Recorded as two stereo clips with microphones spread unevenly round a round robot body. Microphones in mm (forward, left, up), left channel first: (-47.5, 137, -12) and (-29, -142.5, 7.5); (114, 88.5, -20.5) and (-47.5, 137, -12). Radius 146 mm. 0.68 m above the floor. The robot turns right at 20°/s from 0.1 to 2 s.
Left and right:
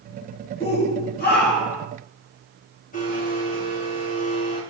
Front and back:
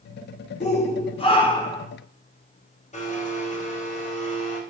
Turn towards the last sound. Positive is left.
turn(degrees=30)